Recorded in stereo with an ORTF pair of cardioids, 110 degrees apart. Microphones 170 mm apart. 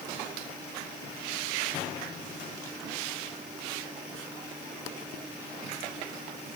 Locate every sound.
Only background noise.